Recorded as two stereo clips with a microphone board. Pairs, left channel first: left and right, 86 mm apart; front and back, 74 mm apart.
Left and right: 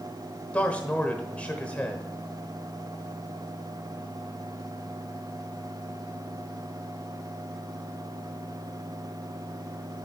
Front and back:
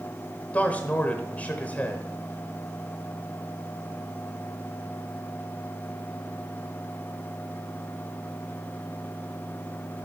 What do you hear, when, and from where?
0.5 s a man speaking: 35° left, 1.0 m